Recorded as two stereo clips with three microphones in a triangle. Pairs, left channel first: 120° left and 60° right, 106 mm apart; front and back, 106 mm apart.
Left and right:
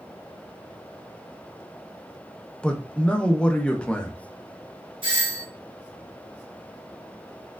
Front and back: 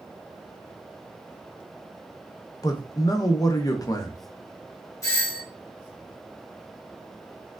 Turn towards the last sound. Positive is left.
turn(degrees=-45)